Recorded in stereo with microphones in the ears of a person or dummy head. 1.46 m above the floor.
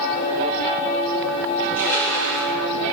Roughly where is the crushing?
Left.